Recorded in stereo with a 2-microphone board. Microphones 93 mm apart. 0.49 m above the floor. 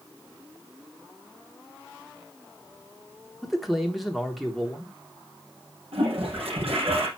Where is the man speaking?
Centre (ahead or behind), 1.1 m.